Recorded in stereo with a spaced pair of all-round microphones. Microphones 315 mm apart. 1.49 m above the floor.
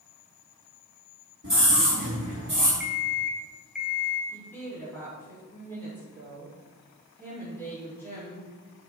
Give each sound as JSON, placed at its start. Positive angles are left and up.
{"t": 1.4, "sound": "a scream", "side_deg": -40, "distance_m": 4.0}
{"t": 2.8, "sound": "an alarm clock", "side_deg": 0, "distance_m": 1.1}
{"t": 4.3, "sound": "a woman speaking", "side_deg": 5, "distance_m": 4.0}